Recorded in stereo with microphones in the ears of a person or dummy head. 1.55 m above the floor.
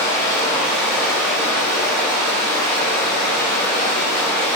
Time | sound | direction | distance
0.0 | running water | 15° left (ahead or behind) | 0.9 m